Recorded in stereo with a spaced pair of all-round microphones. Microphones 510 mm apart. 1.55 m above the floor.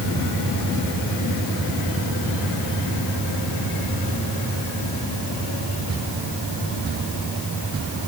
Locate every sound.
Only background noise.